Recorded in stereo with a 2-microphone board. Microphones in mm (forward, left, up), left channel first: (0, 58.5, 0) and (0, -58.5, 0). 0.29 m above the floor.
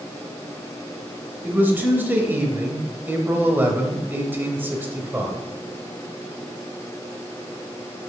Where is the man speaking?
15° right (ahead or behind), 0.9 m.